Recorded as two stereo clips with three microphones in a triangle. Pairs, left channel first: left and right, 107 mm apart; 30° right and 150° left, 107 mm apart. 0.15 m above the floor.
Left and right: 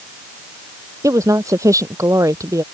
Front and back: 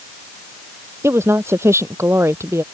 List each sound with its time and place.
1.0 s a woman speaking: 145° right